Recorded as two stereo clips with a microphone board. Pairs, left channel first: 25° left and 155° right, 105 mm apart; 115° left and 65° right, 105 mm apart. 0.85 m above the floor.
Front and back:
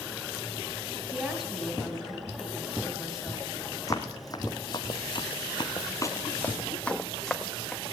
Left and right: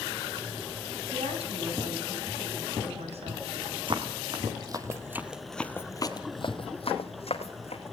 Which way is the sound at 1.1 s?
75° right.